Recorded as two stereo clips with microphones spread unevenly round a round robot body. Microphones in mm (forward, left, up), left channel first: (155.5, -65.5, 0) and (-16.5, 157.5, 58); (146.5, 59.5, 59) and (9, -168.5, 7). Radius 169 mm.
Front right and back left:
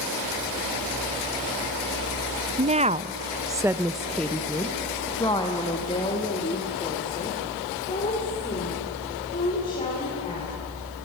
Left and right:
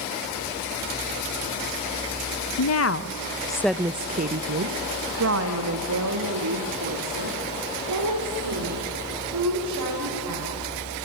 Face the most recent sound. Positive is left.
turn(degrees=-125)